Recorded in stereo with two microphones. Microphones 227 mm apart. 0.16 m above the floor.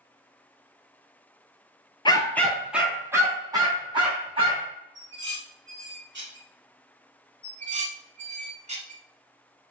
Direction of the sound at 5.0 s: 55° right (ahead or behind).